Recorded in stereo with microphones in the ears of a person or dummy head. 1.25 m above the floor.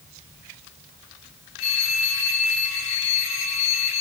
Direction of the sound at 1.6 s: 75° left (ahead or behind).